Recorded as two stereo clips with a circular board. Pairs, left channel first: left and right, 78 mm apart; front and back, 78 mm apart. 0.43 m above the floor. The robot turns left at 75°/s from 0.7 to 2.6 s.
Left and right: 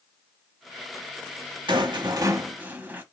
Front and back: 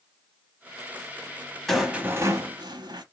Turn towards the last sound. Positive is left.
turn(degrees=-155)